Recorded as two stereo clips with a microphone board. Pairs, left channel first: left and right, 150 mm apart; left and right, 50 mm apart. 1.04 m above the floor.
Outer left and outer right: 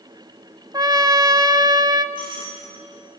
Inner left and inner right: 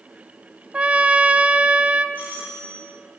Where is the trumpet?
25° right (ahead or behind), 1.0 m.